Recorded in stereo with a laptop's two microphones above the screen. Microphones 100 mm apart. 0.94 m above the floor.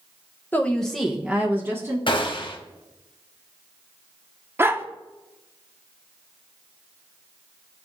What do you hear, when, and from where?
0.5 s a woman speaking: 20° left (ahead or behind), 0.7 m; by 2.0 s 25° right (ahead or behind), 1.2 m
2.1 s a gunshot: 60° left (ahead or behind), 0.9 m
4.6 s a dog barking: 25° right (ahead or behind), 0.6 m